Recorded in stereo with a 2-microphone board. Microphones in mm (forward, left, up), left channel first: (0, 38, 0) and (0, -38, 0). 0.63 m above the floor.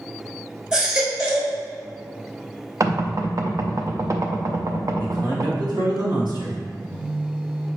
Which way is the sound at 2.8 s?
45° right (ahead or behind).